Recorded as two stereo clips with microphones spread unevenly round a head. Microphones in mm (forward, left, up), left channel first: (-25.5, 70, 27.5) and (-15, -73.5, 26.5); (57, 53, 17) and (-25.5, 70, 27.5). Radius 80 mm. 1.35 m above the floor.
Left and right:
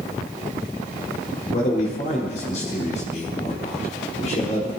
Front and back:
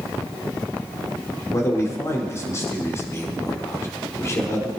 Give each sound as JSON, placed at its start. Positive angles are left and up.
{"t": 1.5, "sound": "a man speaking", "azimuth_deg": 45, "distance_m": 4.5}